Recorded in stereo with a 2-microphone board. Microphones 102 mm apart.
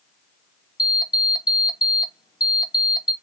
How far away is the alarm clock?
About 0.5 m.